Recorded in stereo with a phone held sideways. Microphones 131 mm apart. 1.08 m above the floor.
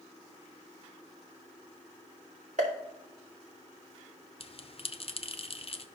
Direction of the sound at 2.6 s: 65° right (ahead or behind).